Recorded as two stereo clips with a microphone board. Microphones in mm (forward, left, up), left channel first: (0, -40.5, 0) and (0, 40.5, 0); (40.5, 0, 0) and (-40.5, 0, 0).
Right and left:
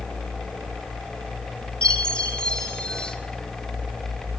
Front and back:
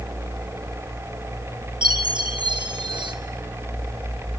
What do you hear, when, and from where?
1.8 s a chime: 170° right, 2 m